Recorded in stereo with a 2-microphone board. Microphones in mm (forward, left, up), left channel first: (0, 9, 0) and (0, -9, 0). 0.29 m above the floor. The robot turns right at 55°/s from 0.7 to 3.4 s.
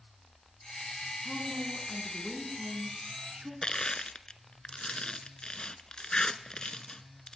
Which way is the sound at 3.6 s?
45° left (ahead or behind).